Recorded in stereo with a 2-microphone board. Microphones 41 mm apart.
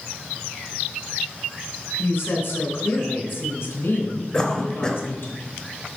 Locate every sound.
2.0 s a woman speaking: 60° left (ahead or behind), 3 m
4.3 s a cough: 20° left (ahead or behind), 1.1 m